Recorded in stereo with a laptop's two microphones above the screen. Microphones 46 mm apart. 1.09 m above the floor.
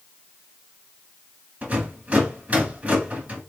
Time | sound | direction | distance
1.6 | a rattle | 30° right (ahead or behind) | 2.5 m